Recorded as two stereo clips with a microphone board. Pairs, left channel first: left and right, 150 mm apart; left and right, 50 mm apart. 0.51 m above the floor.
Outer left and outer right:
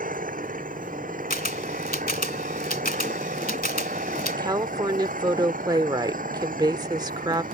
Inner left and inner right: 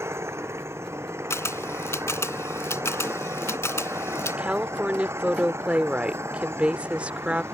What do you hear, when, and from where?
0.0 s an engine running: 65° right (ahead or behind)
1.3 s a camera shutter: 75° left (ahead or behind)
4.3 s a woman speaking: 25° right (ahead or behind)